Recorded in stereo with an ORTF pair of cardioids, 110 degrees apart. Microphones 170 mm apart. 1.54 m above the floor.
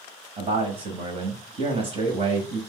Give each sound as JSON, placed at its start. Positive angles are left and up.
{"t": 0.4, "sound": "a man speaking", "azimuth_deg": -35, "distance_m": 0.9}